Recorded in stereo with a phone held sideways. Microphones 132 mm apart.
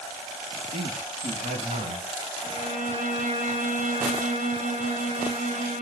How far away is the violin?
About 6.5 m.